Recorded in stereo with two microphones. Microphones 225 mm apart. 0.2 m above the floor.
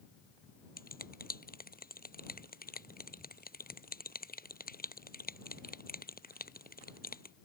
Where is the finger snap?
40° left (ahead or behind).